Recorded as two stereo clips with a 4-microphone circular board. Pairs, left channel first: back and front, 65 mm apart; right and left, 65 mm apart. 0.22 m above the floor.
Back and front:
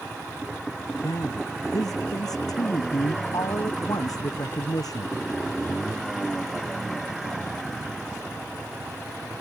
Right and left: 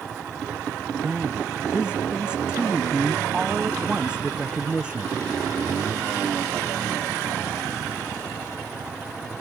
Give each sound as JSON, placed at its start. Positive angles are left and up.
{"t": 1.0, "sound": "a man speaking", "azimuth_deg": 165}